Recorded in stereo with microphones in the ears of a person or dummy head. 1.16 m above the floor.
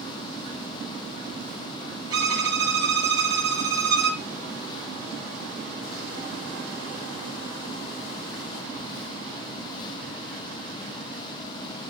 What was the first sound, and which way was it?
A violin, 25° right (ahead or behind).